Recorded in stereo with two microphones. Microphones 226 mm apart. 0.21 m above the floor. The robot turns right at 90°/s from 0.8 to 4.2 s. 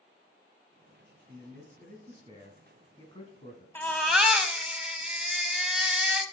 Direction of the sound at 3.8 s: 10° left (ahead or behind).